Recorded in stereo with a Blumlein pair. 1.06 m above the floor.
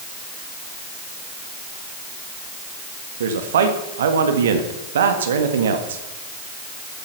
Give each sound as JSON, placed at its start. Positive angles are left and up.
{"t": 3.2, "sound": "a man speaking", "azimuth_deg": -65, "distance_m": 1.7}